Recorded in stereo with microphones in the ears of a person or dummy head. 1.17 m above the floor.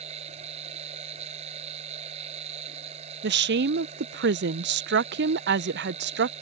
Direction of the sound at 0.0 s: 30° right (ahead or behind).